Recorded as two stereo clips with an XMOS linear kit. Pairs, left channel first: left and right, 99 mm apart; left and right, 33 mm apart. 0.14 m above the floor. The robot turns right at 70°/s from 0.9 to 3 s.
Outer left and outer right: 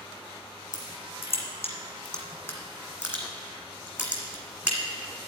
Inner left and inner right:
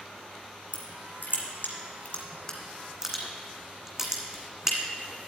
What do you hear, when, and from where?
0.7 s crushing: 45° left (ahead or behind), 1.8 m; by 4.8 s 10° right (ahead or behind), 1.8 m